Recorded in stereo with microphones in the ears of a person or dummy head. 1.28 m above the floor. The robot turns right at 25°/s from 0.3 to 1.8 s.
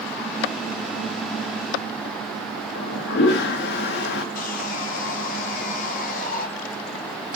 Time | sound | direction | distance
2.8 | a toilet flushing | 60° left (ahead or behind) | 1.0 m
4.3 | sawing | 45° left (ahead or behind) | 1.9 m